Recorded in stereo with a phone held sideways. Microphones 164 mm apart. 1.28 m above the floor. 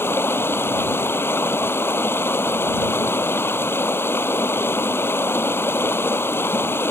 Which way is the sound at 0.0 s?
15° left (ahead or behind).